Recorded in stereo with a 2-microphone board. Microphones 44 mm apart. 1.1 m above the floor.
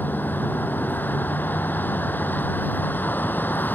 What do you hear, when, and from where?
0.0 s a vehicle: 45° left (ahead or behind)